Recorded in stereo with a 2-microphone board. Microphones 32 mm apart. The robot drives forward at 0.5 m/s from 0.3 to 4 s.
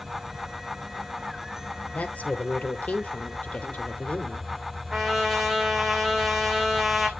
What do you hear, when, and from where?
0.0 s an insect: 20° right (ahead or behind), 4.5 m; by 7.2 s 15° right (ahead or behind), 6 m
1.9 s a woman speaking: 60° left (ahead or behind), 2.5 m; by 4.5 s 50° left (ahead or behind), 3 m
4.9 s a trumpet: 5° right (ahead or behind), 2 m